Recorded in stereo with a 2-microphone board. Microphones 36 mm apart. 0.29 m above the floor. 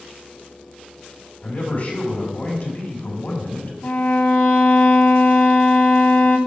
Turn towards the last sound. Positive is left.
turn(degrees=60)  # may be behind; listen again after turning